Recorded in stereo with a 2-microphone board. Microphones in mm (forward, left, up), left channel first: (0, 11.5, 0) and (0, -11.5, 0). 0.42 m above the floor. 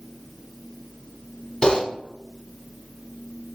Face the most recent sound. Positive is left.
turn(degrees=30)  # may be behind; listen again after turning